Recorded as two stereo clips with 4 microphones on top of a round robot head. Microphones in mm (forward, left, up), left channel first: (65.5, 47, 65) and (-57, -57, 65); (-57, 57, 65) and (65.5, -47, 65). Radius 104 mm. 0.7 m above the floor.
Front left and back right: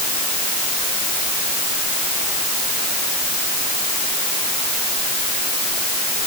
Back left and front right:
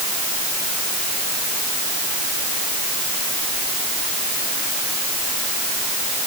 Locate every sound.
Only background noise.